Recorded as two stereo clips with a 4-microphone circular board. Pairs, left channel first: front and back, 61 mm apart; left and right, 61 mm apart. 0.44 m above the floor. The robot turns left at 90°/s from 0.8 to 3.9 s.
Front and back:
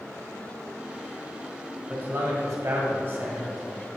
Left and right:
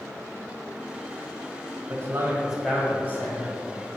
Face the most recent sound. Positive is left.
turn(degrees=65)